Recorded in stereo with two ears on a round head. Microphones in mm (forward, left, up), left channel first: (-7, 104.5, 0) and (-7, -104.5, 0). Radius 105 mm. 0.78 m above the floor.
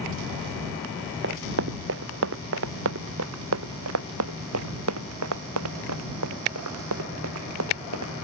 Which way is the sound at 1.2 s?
55° right (ahead or behind).